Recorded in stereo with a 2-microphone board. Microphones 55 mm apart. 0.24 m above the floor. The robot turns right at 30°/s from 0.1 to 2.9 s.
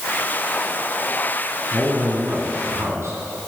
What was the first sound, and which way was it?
A man speaking, 140° right.